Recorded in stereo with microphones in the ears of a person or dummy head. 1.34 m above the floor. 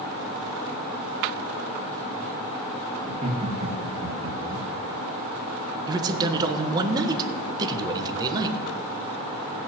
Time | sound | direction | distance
3.0 | laughter | 30° right (ahead or behind) | 1.8 m
5.9 | a man speaking | 20° right (ahead or behind) | 1.2 m